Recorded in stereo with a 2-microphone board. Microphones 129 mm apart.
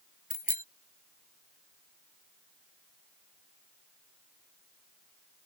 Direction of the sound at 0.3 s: 80° left.